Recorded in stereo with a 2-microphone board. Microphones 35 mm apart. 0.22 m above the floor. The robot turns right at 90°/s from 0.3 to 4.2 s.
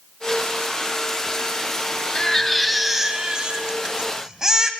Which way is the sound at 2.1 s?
20° left (ahead or behind).